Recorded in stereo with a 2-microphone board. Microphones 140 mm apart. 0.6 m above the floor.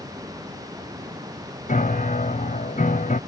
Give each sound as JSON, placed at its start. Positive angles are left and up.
{"t": 1.7, "sound": "a piano", "side_deg": 65}